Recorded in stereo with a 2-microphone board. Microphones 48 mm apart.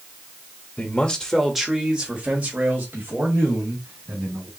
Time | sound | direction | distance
0.8 | a man speaking | 25° left (ahead or behind) | 0.9 m